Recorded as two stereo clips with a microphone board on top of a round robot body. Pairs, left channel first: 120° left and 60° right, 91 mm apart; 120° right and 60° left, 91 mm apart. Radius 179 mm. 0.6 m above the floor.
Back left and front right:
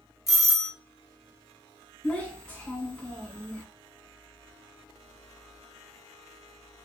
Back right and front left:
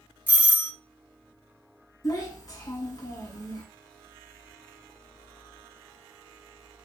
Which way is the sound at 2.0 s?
165° right.